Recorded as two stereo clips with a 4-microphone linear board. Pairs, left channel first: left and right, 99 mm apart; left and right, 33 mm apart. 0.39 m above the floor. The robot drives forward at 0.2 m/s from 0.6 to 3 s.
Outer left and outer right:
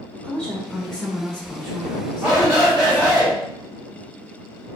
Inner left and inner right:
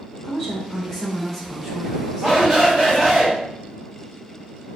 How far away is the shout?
About 1.9 m.